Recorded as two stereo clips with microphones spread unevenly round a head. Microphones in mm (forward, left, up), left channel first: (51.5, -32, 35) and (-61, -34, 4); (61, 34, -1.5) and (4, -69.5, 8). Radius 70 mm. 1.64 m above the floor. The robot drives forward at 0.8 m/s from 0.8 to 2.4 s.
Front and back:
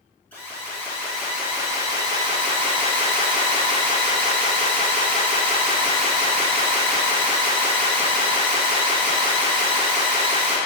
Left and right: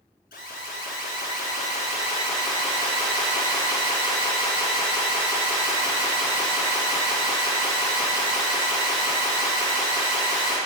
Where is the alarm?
75° left, 1.5 m; by 10.6 s 120° left, 1.7 m.